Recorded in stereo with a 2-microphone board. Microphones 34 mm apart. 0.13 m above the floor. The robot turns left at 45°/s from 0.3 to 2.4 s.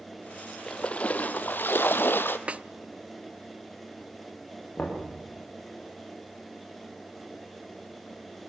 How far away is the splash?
About 1.1 m.